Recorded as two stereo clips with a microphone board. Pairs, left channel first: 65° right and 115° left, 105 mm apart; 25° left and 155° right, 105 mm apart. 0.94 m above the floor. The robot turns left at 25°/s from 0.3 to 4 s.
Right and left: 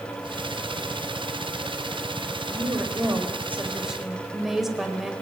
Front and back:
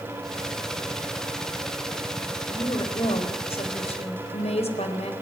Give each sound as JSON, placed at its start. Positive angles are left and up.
{"t": 2.5, "sound": "a woman speaking", "azimuth_deg": 65, "distance_m": 4.5}